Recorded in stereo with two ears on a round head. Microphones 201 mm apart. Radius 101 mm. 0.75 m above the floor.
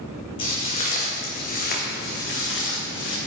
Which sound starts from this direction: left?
Footsteps, at 0.4 s.